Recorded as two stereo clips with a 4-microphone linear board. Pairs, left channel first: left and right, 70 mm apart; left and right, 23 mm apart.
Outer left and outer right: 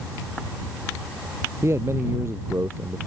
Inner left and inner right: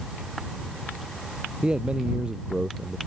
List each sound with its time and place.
1.6 s a man speaking: 40° right (ahead or behind)